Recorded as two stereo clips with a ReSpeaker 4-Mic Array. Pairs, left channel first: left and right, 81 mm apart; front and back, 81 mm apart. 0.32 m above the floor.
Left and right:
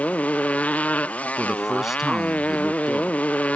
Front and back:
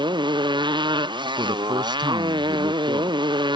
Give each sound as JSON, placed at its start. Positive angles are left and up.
{"t": 0.0, "sound": "a motorcycle", "azimuth_deg": 165}
{"t": 1.4, "sound": "a man speaking", "azimuth_deg": -175}